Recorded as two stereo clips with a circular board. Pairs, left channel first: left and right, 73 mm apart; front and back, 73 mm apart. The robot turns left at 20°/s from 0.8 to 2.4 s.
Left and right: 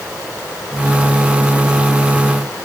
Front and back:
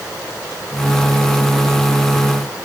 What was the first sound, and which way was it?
Only background noise.